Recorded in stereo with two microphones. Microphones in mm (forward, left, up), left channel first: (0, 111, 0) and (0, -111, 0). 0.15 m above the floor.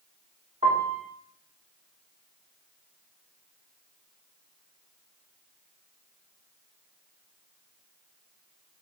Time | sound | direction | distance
0.6 | a piano | 30° right (ahead or behind) | 6.5 m